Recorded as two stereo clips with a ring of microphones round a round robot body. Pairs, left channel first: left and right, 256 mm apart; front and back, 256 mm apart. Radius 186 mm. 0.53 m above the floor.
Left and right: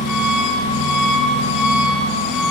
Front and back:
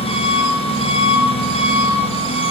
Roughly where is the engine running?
Left.